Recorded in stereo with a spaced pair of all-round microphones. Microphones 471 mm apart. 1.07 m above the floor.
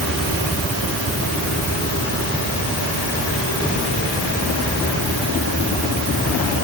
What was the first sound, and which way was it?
Only background noise.